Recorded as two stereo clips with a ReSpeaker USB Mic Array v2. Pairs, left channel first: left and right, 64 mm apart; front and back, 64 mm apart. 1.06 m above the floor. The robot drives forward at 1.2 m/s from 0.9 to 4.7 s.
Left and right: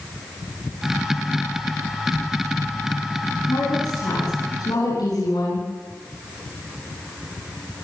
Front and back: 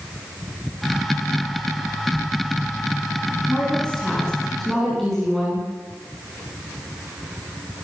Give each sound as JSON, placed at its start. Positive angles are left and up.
{"t": 3.5, "sound": "a woman speaking", "azimuth_deg": 75, "distance_m": 10.0}